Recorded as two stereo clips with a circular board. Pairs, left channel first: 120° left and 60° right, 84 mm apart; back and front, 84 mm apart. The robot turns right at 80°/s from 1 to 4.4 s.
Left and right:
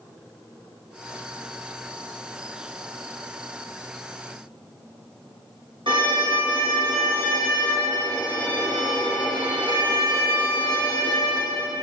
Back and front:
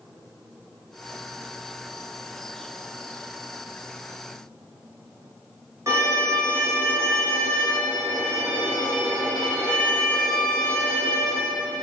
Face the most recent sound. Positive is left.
turn(degrees=-55)